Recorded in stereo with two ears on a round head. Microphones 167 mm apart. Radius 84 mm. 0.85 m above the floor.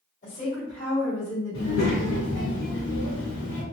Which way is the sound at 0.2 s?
60° left (ahead or behind).